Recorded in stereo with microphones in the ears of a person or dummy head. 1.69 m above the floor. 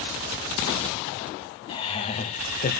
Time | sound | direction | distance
1.7 | laughter | 25° left (ahead or behind) | 1.8 m